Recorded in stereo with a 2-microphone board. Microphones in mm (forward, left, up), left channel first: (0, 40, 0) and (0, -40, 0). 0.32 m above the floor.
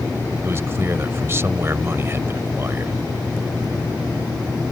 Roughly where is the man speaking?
Right.